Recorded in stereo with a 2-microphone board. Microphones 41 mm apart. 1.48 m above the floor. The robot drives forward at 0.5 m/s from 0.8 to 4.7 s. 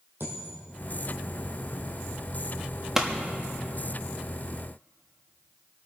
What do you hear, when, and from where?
0.2 s a dropped coin: 60° right (ahead or behind), 3.5 m
3.0 s a pop: 10° right (ahead or behind), 1.0 m